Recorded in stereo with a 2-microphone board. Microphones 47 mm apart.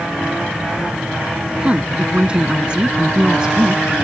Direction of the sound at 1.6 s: 20° right (ahead or behind).